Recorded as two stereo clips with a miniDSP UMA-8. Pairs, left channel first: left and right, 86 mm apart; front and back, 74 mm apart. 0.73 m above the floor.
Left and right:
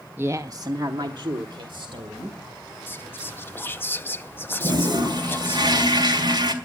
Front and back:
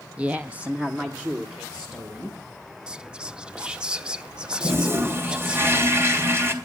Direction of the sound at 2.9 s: 120° left.